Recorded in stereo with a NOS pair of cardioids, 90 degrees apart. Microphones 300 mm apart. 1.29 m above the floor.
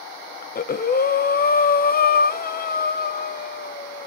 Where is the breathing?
30° left, 0.8 m.